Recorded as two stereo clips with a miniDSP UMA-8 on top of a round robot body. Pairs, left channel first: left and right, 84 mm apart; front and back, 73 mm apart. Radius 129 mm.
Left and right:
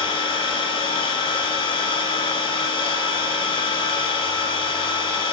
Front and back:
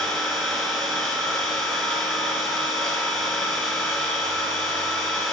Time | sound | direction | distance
0.0 | an engine running | 80° left | 2.5 m